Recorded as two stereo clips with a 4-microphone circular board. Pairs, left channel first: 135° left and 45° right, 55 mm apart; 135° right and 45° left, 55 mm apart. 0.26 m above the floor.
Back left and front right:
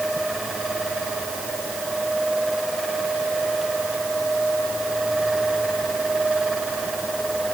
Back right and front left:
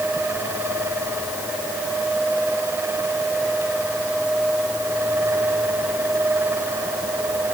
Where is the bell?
No bell in this recording.